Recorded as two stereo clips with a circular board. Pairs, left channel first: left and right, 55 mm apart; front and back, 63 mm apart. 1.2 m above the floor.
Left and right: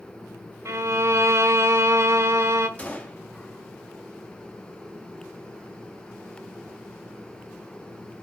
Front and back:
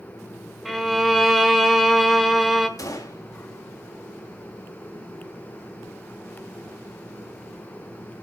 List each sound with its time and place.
0.7 s a violin: 90° right, 1.3 m
2.8 s a gunshot: 25° left, 2.5 m